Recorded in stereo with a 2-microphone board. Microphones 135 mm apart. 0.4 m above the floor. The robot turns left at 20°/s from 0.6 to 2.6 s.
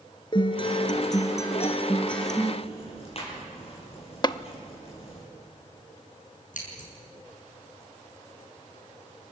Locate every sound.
0.3 s a guitar: 35° left, 2.0 m; by 2.5 s straight ahead, 2.0 m
2.6 s ticking: 45° left (ahead or behind), 8 m
4.2 s tapping: 35° left (ahead or behind), 0.6 m
6.5 s scissors: 75° left (ahead or behind), 6.5 m